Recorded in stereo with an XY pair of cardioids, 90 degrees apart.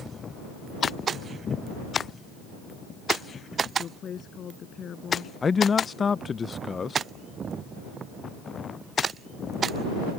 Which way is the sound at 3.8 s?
60° left.